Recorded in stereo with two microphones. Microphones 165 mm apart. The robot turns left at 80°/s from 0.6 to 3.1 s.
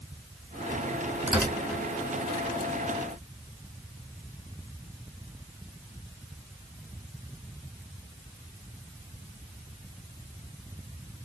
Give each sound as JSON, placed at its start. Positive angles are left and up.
{"t": 1.3, "sound": "tearing paper", "side_deg": -15, "distance_m": 1.8}